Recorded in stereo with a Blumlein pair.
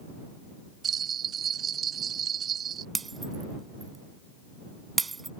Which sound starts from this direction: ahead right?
A bell, at 0.8 s.